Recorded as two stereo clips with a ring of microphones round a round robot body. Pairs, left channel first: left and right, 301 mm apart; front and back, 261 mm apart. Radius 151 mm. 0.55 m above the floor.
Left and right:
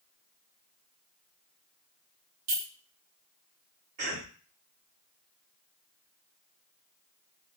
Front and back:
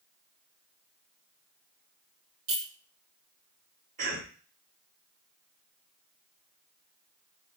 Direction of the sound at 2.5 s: 120° right.